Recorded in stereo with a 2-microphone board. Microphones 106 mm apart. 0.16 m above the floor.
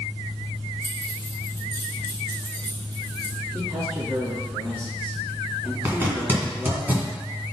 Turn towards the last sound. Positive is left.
turn(degrees=-20)  # may be behind; listen again after turning